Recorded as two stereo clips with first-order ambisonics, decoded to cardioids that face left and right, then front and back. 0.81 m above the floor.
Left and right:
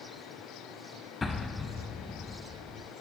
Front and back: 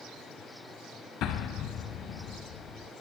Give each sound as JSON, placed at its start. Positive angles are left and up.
{"t": 1.2, "sound": "an explosion", "azimuth_deg": 25, "distance_m": 0.9}